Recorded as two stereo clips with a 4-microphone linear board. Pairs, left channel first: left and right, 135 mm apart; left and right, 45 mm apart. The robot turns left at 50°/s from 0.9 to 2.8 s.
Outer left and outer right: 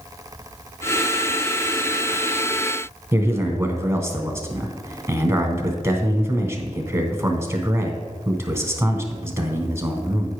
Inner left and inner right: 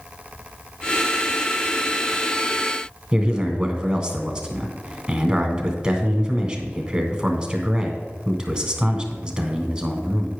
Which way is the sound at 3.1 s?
20° right (ahead or behind).